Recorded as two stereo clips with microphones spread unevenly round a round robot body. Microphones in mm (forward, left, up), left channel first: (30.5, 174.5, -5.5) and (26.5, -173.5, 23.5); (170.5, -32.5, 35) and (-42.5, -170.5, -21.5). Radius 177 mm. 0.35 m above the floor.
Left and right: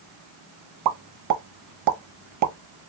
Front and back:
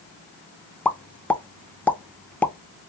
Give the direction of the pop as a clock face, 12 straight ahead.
2 o'clock.